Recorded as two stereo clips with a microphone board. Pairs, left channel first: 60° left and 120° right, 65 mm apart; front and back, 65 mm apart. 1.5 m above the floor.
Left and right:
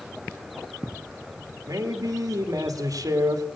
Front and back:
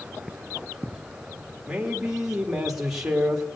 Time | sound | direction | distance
1.7 | a man speaking | 95° right | 2.5 m